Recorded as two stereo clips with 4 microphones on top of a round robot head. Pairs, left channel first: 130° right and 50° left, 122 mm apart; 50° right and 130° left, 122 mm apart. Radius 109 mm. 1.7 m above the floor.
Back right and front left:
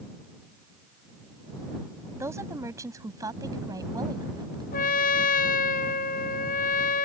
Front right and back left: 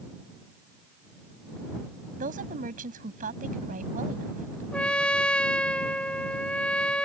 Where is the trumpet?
135° right.